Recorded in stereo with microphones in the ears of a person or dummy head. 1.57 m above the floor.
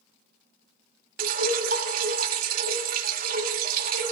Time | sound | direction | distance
1.2 | dripping | 55° right (ahead or behind) | 1.4 m